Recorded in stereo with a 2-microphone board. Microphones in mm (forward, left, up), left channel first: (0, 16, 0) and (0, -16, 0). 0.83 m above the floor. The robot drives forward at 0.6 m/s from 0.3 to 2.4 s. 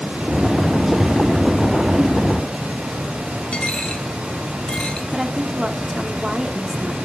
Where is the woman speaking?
15° right (ahead or behind), 1.4 m.